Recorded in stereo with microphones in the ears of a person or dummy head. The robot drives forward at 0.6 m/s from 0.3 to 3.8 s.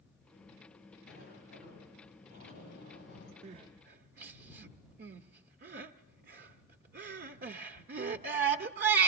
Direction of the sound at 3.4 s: 40° right (ahead or behind).